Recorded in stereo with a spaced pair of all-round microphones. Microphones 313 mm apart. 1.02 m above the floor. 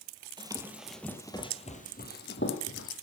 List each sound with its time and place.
0.4 s running footsteps: 15° right (ahead or behind), 1.5 m; by 2.9 s 45° left (ahead or behind), 2 m